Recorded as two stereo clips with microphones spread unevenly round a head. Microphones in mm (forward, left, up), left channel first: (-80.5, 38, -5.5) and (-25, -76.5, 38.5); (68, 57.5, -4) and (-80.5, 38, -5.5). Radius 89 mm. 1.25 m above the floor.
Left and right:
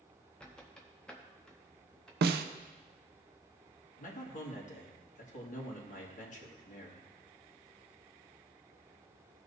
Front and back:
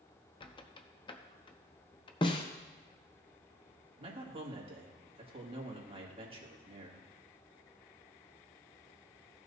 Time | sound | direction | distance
0.4 | a squeak | straight ahead | 0.7 m
2.2 | a snare drum | 60° right | 0.6 m
4.0 | a man speaking | 135° left | 2.5 m